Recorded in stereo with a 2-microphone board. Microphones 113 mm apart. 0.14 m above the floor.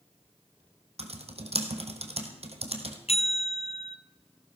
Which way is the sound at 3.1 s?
65° left (ahead or behind).